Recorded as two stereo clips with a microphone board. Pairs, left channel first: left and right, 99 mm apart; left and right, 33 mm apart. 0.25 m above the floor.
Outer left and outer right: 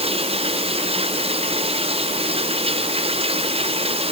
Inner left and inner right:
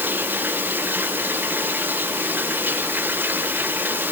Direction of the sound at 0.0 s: 80° right.